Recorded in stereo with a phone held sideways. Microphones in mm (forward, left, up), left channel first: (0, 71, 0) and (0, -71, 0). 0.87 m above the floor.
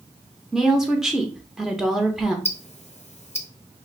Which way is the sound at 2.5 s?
55° left (ahead or behind).